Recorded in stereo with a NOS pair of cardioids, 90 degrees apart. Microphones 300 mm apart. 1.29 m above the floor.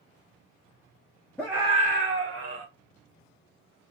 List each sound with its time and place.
1.4 s a scream: 5° left, 0.7 m; by 2.6 s 65° right, 1.3 m